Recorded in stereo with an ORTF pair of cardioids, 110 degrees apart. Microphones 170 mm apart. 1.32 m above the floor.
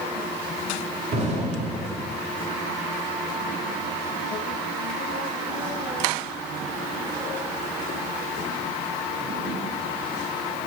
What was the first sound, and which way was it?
An explosion, 40° right.